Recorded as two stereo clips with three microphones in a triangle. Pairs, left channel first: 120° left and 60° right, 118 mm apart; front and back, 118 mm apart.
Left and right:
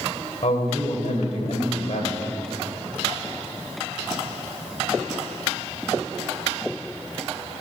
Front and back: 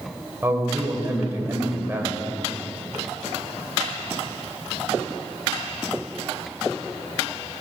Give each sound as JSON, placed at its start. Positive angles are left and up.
{"t": 0.4, "sound": "a man speaking", "azimuth_deg": 110, "distance_m": 2.0}